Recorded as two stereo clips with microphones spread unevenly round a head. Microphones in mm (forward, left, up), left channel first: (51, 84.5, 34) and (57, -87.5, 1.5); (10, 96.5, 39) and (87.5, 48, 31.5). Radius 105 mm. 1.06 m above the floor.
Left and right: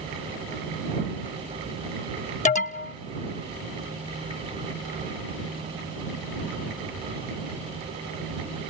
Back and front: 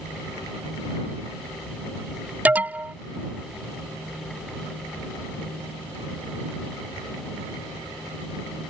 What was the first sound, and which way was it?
An alarm, 40° left.